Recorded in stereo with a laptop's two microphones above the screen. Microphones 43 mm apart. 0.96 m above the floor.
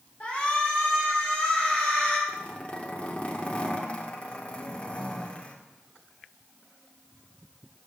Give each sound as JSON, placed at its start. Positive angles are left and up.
{"t": 0.2, "sound": "a shout", "side_deg": 30, "distance_m": 3.5}
{"t": 2.3, "sound": "a zipper", "side_deg": 30, "distance_m": 2.0}